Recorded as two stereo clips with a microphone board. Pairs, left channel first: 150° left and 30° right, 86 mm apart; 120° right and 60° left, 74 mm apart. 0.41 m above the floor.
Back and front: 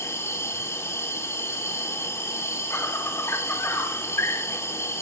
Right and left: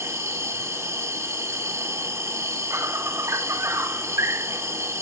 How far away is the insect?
About 1.9 m.